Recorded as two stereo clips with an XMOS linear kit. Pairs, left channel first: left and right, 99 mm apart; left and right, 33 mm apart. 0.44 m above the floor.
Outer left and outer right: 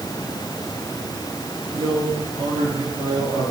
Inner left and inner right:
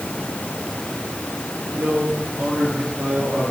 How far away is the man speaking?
About 7.5 m.